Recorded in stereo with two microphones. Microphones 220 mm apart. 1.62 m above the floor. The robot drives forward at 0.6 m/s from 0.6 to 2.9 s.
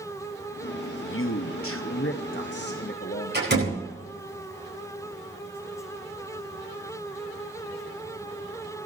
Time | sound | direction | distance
0.9 | a man speaking | 60° left (ahead or behind) | 0.9 m
3.3 | a door slam | 50° right (ahead or behind) | 10 m